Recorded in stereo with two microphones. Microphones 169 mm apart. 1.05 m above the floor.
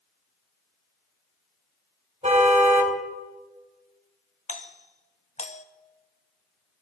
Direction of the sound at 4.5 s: 45° left (ahead or behind).